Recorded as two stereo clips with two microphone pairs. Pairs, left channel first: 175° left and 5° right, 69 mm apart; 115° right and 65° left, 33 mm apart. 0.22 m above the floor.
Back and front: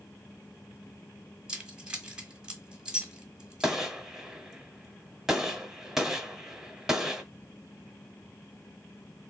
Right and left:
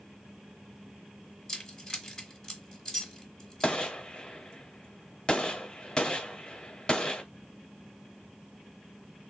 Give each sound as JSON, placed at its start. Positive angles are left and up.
{"t": 1.5, "sound": "keys jangling", "azimuth_deg": -70, "distance_m": 1.1}
{"t": 3.6, "sound": "a gunshot", "azimuth_deg": -85, "distance_m": 1.0}